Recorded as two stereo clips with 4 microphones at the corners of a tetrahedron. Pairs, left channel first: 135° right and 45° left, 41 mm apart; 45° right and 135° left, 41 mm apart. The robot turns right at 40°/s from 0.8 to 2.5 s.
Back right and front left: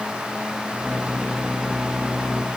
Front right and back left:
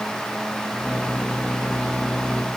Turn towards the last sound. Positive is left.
No sound to turn to.